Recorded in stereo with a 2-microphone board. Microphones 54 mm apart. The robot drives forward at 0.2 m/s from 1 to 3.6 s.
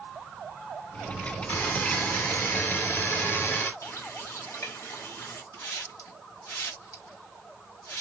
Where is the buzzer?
40° left (ahead or behind), 2 m; by 3.7 s 45° left (ahead or behind), 1.7 m.